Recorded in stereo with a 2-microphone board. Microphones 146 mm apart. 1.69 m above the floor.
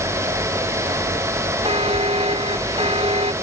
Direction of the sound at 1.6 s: 40° right (ahead or behind).